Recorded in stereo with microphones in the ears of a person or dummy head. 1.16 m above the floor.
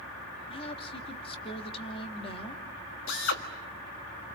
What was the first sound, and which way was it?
A woman speaking, 35° left (ahead or behind).